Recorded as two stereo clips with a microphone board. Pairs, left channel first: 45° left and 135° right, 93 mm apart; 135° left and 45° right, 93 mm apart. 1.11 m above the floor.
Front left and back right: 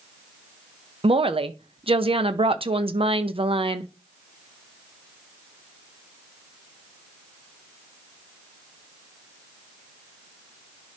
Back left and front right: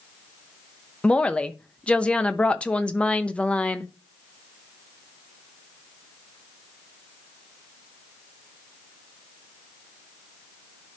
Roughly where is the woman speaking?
Behind right.